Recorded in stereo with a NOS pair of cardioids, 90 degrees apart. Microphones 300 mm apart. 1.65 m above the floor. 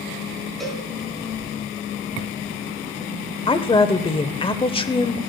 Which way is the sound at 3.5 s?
20° left.